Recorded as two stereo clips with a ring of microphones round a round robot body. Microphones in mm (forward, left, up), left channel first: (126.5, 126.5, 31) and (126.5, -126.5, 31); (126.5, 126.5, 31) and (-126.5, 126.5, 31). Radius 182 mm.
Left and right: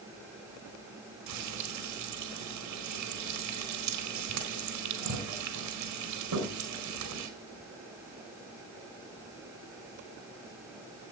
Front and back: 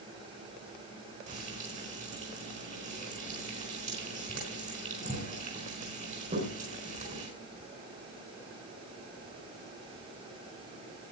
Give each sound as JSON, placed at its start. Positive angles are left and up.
{"t": 1.3, "sound": "frying", "azimuth_deg": -110, "distance_m": 4.5}